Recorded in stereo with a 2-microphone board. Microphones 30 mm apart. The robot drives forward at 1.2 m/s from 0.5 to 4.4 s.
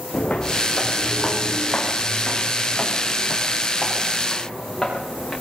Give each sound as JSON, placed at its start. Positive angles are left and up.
{"t": 0.1, "sound": "footsteps", "side_deg": 40, "distance_m": 4.5}